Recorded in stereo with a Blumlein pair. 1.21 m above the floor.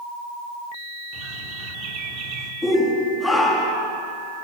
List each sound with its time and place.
1.1 s a bird: 35° right, 3 m
2.6 s a shout: 5° left, 2.5 m